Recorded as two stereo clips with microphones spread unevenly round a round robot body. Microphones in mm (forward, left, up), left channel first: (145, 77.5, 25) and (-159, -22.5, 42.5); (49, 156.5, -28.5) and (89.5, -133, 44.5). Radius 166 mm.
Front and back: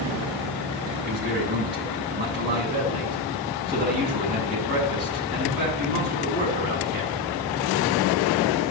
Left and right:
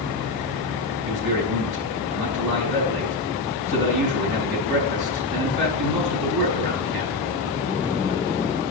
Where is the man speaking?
100° right, 6 m.